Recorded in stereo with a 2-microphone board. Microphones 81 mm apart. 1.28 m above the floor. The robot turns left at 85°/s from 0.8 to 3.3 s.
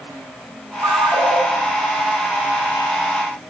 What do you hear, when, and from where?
0.8 s a ringtone: 95° right, 0.7 m; by 1.4 s 145° right, 0.7 m